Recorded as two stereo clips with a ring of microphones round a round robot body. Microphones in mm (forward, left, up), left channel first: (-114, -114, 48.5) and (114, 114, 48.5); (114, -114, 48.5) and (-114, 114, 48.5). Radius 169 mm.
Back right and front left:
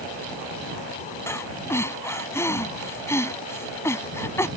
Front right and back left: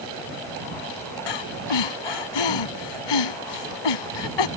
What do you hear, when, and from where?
1.3 s breathing: 50° right